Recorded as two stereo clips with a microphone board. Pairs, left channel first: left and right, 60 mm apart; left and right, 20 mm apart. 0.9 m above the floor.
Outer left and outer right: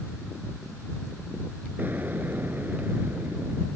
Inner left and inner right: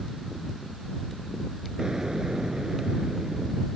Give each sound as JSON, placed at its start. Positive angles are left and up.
{"t": 1.8, "sound": "an explosion", "side_deg": -30}